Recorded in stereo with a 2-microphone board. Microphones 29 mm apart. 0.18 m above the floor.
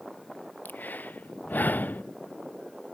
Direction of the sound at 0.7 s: 80° left.